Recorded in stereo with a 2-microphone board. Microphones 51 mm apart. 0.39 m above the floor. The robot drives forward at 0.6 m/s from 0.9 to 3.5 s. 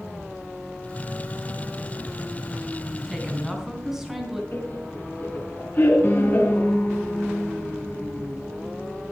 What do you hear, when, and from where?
3.1 s a woman speaking: 5° right (ahead or behind), 3 m
4.5 s laughter: 40° left (ahead or behind), 4.5 m
6.0 s a piano: 35° left (ahead or behind), 4 m